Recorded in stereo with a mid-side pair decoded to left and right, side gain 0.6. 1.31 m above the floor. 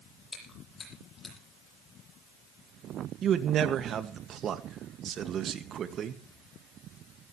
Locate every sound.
0.3 s chewing: 25° left, 10 m
3.2 s a man speaking: 45° right, 2.0 m